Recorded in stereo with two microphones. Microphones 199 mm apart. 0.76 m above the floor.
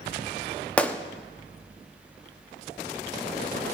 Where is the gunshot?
5° left (ahead or behind), 1.0 m.